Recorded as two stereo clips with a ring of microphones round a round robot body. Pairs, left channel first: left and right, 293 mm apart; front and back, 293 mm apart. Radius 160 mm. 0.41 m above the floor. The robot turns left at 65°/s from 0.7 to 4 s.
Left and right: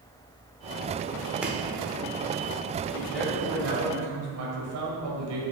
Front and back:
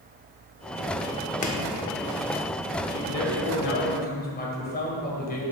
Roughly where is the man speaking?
Ahead.